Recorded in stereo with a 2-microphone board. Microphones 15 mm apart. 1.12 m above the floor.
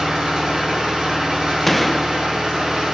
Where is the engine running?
65° right (ahead or behind), 5 m.